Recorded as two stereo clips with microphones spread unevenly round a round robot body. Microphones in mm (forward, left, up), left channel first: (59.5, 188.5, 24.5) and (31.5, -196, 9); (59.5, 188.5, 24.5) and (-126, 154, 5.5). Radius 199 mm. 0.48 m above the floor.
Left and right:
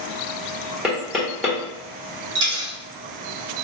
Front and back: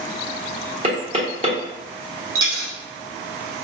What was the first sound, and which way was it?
Knocking, straight behind.